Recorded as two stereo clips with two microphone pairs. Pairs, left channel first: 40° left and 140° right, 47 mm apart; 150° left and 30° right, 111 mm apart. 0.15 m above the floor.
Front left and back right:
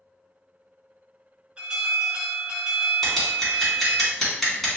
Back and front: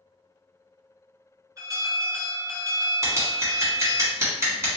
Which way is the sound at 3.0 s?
35° right.